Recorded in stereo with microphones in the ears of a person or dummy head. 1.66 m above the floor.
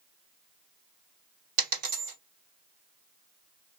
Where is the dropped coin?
60° right (ahead or behind), 2 m.